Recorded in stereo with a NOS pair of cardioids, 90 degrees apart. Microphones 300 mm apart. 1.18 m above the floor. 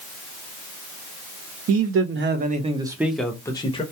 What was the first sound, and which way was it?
A man speaking, 55° right.